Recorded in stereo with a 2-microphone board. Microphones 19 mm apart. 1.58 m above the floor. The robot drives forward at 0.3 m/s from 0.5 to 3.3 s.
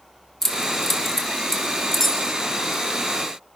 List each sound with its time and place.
0.4 s keys jangling: 25° left (ahead or behind), 1.9 m; by 2.8 s 20° left (ahead or behind), 2.5 m